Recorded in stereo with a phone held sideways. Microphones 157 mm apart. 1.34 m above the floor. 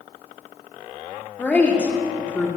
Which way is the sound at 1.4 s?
10° left (ahead or behind).